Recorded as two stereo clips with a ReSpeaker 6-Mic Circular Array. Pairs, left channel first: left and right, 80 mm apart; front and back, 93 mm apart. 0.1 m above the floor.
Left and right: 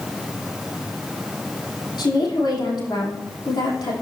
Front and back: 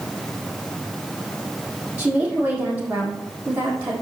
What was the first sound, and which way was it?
A woman speaking, 110° left.